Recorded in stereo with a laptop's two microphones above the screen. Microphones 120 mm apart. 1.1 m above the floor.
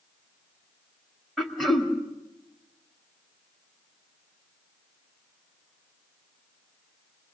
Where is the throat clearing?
Centre (ahead or behind), 2 m.